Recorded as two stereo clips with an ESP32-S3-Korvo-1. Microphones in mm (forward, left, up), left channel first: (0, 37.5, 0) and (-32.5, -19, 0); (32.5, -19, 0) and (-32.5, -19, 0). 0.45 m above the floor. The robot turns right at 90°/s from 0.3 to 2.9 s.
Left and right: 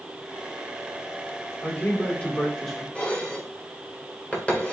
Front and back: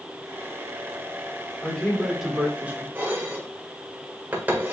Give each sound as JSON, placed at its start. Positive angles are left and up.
{"t": 1.6, "sound": "a man speaking", "azimuth_deg": 50, "distance_m": 1.3}
{"t": 3.0, "sound": "dishes clattering", "azimuth_deg": 125, "distance_m": 1.1}